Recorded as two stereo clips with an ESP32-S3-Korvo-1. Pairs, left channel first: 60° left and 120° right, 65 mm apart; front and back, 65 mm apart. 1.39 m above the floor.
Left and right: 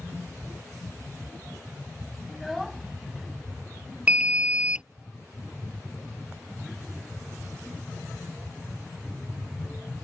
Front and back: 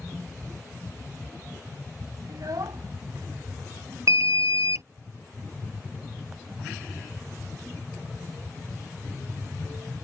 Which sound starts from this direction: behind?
An alarm, at 4.1 s.